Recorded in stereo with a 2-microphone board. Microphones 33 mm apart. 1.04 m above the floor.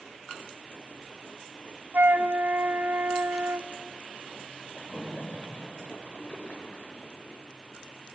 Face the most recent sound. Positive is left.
turn(degrees=45)  # may be behind; listen again after turning